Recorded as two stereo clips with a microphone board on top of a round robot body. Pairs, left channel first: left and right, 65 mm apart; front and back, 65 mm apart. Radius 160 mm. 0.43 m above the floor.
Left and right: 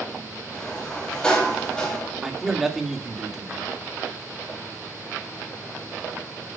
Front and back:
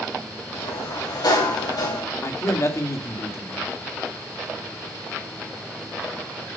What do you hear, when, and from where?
0.5 s a sliding door: 15° left, 3.5 m
2.2 s a man speaking: 5° right, 2.0 m